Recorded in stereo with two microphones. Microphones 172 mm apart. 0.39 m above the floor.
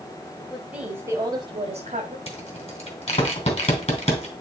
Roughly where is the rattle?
Left.